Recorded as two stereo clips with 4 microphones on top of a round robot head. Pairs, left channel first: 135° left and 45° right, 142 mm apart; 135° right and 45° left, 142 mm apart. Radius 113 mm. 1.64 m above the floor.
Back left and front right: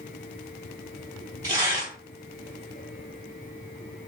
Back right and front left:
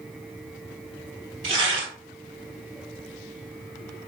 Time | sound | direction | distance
1.4 | tearing paper | 5° left | 2.5 m